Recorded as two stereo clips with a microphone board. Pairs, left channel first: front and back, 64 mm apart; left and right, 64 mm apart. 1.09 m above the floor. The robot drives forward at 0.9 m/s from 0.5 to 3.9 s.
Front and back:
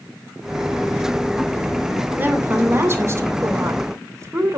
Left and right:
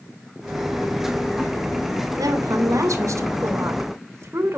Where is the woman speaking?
120° right, 2.5 m; by 4.6 s 140° right, 3.5 m.